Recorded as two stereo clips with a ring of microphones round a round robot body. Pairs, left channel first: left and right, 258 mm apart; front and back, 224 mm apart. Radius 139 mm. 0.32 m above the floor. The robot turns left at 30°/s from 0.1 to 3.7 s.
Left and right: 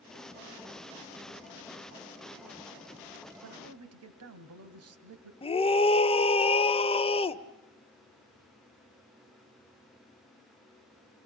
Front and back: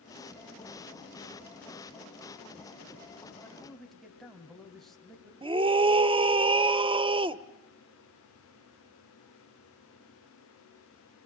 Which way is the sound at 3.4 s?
80° right.